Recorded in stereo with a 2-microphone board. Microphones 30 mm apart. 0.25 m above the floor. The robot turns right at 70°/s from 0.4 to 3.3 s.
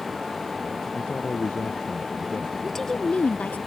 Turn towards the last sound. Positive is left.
turn(degrees=50)